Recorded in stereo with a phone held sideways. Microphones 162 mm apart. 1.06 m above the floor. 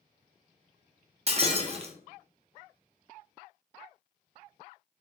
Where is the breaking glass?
40° right (ahead or behind), 0.6 m.